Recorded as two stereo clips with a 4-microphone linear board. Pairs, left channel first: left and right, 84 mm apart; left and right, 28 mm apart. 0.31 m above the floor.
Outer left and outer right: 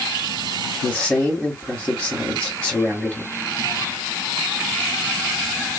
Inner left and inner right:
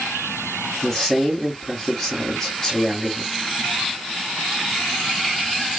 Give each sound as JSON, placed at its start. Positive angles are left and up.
{"t": 0.8, "sound": "a man speaking", "side_deg": 0, "distance_m": 1.9}